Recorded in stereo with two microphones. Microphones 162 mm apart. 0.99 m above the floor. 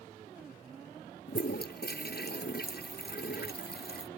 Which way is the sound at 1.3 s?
80° left.